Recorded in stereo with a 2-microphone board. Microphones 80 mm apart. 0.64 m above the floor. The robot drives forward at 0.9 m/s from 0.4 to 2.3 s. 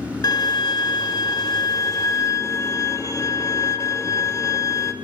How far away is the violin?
About 1.5 m.